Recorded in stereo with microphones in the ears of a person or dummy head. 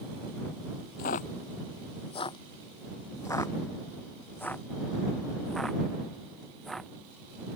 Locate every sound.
1.0 s footsteps: 45° left (ahead or behind); by 6.9 s centre (ahead or behind)